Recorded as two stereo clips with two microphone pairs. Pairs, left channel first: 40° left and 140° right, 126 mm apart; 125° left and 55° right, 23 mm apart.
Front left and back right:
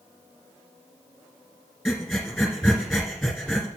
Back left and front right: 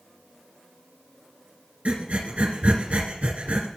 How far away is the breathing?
About 1.8 m.